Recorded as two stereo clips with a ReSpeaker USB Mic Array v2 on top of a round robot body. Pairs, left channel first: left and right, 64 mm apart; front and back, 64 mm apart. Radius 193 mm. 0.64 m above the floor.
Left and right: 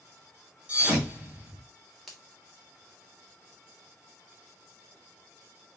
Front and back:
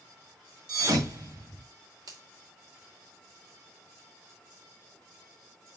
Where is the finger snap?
Straight behind, 3 m.